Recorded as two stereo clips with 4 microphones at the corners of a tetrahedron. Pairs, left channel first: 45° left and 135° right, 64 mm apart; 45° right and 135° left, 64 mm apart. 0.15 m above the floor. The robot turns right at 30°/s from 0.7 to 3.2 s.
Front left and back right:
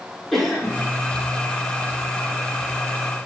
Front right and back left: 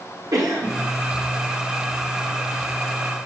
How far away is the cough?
About 5.5 m.